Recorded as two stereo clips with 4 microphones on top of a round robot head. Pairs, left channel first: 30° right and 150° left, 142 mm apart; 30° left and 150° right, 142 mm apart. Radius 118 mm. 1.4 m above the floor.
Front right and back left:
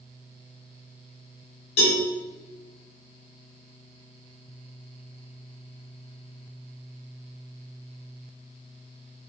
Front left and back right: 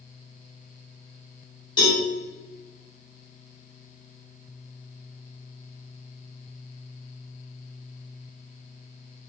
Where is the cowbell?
30° right, 2.5 m.